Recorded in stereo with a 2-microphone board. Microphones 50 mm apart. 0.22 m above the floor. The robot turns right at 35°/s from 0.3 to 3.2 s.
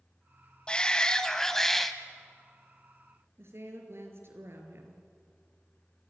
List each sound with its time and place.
0.7 s a shout: 20° left (ahead or behind), 1.3 m; by 1.9 s 5° left (ahead or behind), 1.3 m
3.4 s a woman speaking: 55° right (ahead or behind), 4 m